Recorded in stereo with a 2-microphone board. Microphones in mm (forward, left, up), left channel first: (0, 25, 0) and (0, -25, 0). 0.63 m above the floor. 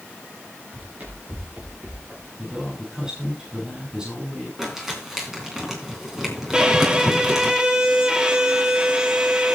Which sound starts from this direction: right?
Running footsteps, at 0.7 s.